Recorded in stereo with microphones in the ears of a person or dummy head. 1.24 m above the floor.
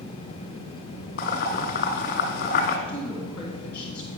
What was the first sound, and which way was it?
Boiling, 55° left (ahead or behind).